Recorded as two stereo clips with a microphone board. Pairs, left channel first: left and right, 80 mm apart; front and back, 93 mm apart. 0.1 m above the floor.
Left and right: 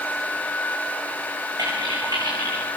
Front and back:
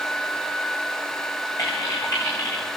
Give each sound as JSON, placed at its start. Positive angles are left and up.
{"t": 1.6, "sound": "typing on a keyboard", "azimuth_deg": -50, "distance_m": 8.5}